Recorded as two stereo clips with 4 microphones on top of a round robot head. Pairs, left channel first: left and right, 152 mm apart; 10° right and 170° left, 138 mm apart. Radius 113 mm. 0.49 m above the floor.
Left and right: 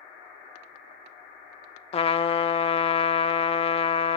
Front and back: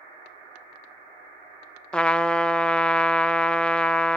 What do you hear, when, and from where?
1.9 s a trumpet: 70° left, 0.6 m